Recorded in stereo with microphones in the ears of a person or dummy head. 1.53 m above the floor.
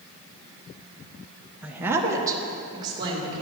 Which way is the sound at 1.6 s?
10° right (ahead or behind).